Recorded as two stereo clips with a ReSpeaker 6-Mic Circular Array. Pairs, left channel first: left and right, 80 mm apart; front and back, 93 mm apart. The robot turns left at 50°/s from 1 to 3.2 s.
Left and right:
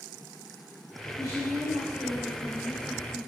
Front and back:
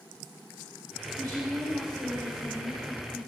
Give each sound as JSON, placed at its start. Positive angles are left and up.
{"t": 1.1, "sound": "a woman speaking", "azimuth_deg": -60, "distance_m": 4.5}